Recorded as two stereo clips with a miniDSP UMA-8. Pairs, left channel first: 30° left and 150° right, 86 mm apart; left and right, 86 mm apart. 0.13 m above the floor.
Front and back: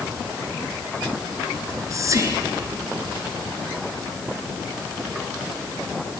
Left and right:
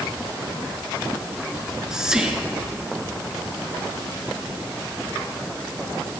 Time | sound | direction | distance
1.6 | whispering | 170° right | 1.4 m